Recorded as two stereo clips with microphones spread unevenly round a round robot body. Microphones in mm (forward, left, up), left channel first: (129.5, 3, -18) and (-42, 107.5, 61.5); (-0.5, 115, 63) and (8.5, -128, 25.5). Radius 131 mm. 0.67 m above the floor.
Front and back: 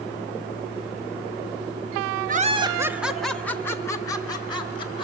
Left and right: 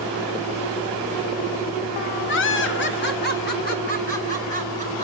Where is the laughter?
90° left, 0.8 m; by 5.0 s 30° left, 2.5 m.